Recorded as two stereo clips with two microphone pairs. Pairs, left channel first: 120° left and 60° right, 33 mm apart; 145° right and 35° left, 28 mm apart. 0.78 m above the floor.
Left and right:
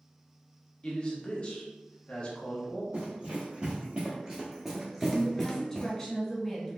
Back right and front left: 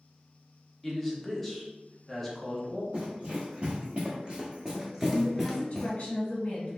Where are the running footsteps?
5° right, 1.4 m; by 5.9 s 155° left, 0.8 m.